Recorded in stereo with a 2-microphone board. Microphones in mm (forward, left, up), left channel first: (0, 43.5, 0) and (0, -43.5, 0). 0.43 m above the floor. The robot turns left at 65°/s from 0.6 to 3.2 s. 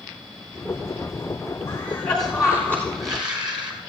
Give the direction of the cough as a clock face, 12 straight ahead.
11 o'clock.